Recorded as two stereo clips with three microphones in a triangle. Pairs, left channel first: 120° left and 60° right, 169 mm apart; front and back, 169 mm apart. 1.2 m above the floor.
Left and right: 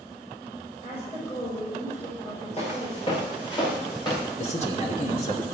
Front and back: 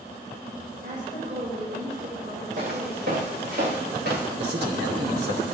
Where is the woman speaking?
170° left, 5.5 m.